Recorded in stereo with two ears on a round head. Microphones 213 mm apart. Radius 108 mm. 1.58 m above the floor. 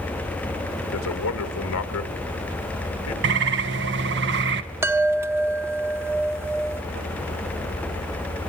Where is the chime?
10° right (ahead or behind), 0.6 m.